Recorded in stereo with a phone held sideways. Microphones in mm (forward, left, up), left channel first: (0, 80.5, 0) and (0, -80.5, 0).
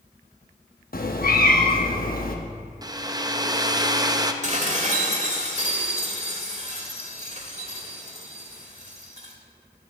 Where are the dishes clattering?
45° right (ahead or behind), 1.8 m.